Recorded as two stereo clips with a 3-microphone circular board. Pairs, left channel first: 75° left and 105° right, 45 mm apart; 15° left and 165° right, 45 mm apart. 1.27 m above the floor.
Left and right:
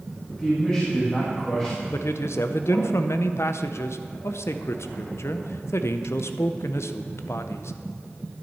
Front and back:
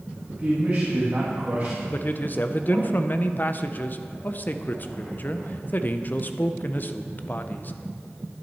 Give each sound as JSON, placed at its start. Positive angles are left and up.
{"t": 0.3, "sound": "a man speaking", "azimuth_deg": 140, "distance_m": 1.7}
{"t": 1.9, "sound": "a man speaking", "azimuth_deg": 65, "distance_m": 0.6}